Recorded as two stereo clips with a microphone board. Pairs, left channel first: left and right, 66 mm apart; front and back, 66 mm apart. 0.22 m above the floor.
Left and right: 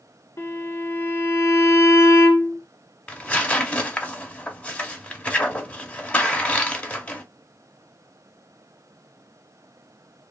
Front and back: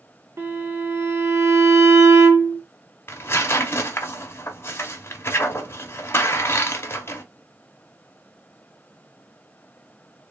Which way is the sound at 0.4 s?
135° left.